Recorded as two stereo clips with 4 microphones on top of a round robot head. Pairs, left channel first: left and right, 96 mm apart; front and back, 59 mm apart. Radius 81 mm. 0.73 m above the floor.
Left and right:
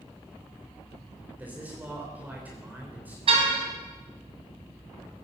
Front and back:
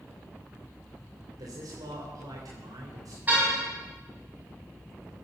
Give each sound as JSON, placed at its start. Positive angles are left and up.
{"t": 1.4, "sound": "a man speaking", "azimuth_deg": -160, "distance_m": 3.5}
{"t": 3.3, "sound": "a car horn", "azimuth_deg": -110, "distance_m": 3.0}